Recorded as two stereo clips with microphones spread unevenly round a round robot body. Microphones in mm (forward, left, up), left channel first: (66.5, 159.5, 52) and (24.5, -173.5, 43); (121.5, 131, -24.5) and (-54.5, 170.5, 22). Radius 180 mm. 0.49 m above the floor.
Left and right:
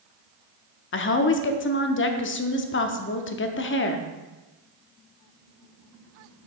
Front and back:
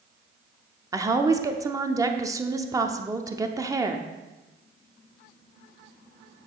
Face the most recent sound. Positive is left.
turn(degrees=85)